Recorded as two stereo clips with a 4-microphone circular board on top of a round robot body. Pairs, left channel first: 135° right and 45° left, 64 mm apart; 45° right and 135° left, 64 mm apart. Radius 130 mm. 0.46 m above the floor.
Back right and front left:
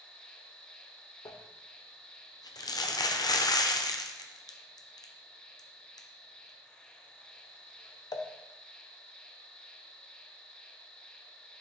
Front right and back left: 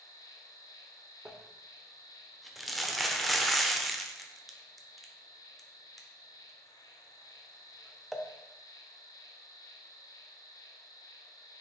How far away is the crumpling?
About 0.8 m.